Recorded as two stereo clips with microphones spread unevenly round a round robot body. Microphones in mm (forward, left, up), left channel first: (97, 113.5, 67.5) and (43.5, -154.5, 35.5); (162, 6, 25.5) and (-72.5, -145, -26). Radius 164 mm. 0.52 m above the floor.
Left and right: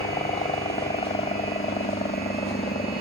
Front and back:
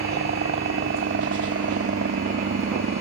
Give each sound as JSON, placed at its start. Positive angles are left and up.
{"t": 0.0, "sound": "a helicopter", "azimuth_deg": 155}